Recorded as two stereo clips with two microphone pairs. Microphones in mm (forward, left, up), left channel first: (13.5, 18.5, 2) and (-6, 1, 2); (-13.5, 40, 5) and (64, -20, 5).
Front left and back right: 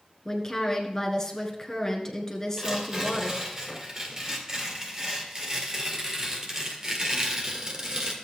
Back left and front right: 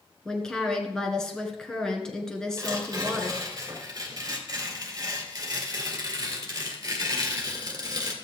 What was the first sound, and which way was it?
A woman speaking, 65° left.